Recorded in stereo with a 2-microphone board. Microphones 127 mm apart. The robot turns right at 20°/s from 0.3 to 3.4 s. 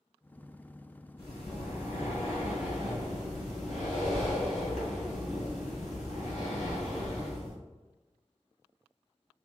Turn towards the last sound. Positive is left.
turn(degrees=105)